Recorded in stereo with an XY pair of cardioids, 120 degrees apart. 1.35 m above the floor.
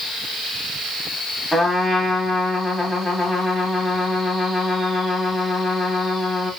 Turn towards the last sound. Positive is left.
turn(degrees=10)